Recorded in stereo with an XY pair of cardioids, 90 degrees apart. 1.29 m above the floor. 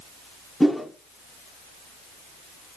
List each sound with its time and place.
0.6 s a whoosh: 5° left, 1.0 m